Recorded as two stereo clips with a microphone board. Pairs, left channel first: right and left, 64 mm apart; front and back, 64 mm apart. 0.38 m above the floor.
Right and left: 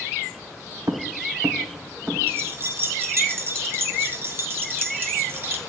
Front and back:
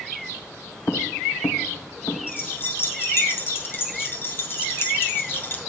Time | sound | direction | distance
0.9 | footsteps | 60° left | 1.0 m
2.3 | keys jangling | 45° left | 1.5 m